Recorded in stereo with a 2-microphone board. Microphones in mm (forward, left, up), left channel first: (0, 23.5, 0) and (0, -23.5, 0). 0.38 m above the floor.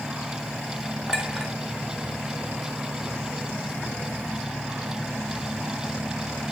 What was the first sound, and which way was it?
A clink, 20° right (ahead or behind).